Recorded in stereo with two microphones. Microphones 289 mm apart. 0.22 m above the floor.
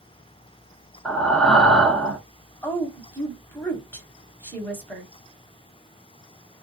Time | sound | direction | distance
1.1 | breathing | 5° left (ahead or behind) | 0.6 m
2.6 | a woman speaking | 5° left (ahead or behind) | 1.0 m